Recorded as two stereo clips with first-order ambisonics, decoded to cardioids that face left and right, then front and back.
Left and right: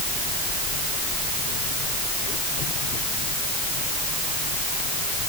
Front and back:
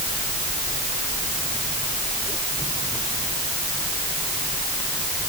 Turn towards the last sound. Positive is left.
No sound to turn to.